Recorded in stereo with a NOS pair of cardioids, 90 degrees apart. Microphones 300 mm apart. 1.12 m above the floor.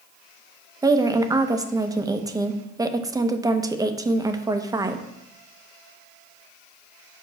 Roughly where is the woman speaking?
Ahead.